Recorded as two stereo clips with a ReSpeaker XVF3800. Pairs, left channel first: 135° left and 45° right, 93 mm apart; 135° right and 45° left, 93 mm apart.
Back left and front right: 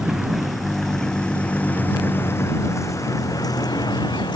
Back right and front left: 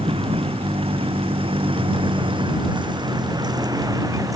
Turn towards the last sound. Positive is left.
turn(degrees=100)